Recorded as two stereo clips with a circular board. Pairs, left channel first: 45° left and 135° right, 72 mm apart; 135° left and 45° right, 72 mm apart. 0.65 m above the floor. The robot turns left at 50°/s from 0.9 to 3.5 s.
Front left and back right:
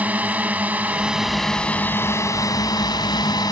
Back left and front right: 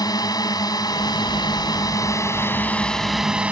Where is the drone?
155° left; by 3.5 s 25° left.